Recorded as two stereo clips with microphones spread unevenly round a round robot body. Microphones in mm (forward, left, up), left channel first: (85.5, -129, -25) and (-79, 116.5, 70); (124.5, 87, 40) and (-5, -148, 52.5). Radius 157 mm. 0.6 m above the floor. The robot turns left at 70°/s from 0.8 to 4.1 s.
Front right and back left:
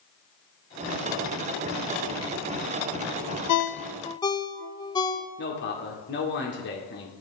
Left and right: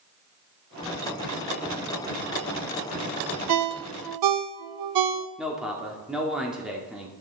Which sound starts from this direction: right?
A ringtone, at 3.5 s.